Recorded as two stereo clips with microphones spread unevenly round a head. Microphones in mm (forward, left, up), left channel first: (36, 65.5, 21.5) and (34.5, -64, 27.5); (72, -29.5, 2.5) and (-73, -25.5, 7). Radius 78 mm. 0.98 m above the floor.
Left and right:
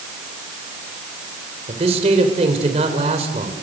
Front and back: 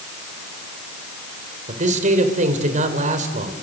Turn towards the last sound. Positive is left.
turn(degrees=-145)